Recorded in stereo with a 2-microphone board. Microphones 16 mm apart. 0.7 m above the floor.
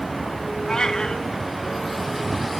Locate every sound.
0.7 s a cat meowing: 65° left (ahead or behind), 2 m